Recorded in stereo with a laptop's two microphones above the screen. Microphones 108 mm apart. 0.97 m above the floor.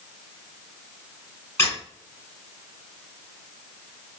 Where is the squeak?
20° left (ahead or behind), 1.4 m.